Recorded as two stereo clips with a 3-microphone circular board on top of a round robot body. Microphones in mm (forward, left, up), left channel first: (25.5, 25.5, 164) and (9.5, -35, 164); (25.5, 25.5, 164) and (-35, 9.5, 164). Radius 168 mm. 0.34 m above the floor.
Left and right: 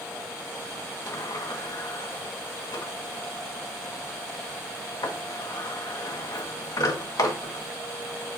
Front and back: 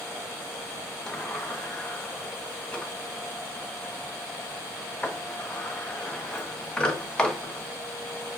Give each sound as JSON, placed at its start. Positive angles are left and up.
{"t": 1.1, "sound": "a sliding door", "azimuth_deg": 95, "distance_m": 1.6}